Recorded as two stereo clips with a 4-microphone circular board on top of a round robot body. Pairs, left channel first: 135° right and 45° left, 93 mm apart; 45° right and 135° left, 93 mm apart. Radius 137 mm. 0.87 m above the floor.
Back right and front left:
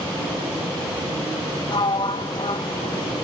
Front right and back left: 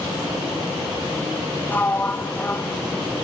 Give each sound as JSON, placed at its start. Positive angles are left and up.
{"t": 1.7, "sound": "a sliding door", "azimuth_deg": -115, "distance_m": 1.3}